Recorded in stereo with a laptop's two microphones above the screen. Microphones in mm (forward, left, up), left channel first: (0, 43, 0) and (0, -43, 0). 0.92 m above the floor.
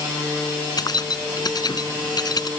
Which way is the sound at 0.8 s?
50° left (ahead or behind).